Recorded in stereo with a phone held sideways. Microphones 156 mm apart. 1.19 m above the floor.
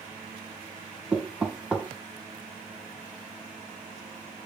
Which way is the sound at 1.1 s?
5° right (ahead or behind).